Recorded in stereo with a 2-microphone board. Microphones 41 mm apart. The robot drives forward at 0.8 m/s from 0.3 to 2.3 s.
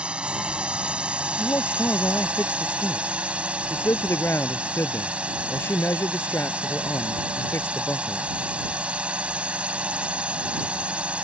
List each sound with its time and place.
0.0 s a drone: 30° right (ahead or behind)
1.4 s a man speaking: 80° left; by 8.2 s 85° left